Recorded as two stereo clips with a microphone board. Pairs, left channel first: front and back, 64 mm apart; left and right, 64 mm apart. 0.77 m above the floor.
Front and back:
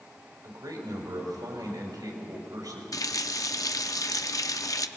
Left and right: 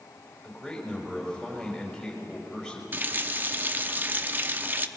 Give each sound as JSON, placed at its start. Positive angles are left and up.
{"t": 0.4, "sound": "a man speaking", "azimuth_deg": 175, "distance_m": 4.5}
{"t": 2.9, "sound": "a running tap", "azimuth_deg": -30, "distance_m": 0.6}